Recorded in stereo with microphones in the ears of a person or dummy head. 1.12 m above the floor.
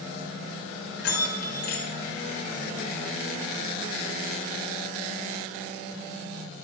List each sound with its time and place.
1.0 s a bell: 65° left (ahead or behind), 1.4 m